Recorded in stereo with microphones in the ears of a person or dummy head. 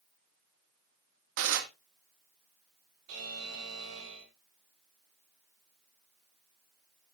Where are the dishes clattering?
70° right (ahead or behind), 1.7 m.